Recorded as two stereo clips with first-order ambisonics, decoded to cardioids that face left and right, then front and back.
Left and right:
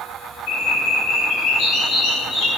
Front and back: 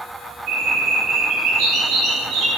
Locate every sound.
0.5 s a bird: 135° left, 3.5 m